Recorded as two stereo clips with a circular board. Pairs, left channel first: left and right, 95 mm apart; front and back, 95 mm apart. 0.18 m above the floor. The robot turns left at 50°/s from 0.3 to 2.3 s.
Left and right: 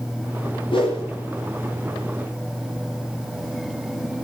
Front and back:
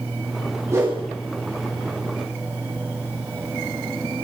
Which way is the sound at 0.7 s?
120° left.